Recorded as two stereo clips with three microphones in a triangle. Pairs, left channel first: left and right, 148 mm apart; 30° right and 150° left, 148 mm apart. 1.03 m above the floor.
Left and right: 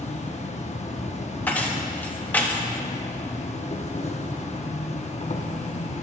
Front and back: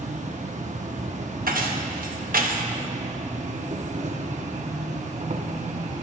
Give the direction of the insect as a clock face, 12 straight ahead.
8 o'clock.